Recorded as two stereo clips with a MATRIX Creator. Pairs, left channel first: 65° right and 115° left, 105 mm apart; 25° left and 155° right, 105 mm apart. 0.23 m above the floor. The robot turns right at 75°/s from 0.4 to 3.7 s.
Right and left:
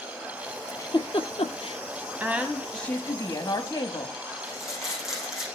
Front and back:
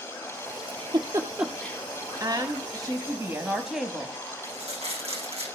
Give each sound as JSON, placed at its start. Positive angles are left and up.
{"t": 0.7, "sound": "a giggle", "azimuth_deg": -130, "distance_m": 1.4}
{"t": 2.2, "sound": "a woman speaking", "azimuth_deg": 175, "distance_m": 1.2}
{"t": 4.4, "sound": "crumpling", "azimuth_deg": -160, "distance_m": 6.5}